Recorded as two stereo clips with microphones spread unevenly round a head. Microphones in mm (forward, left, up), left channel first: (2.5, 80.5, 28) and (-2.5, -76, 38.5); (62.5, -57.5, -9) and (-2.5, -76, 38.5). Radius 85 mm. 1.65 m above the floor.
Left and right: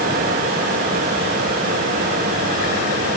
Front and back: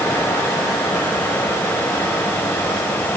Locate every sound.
0.0 s a fan: 55° right, 6 m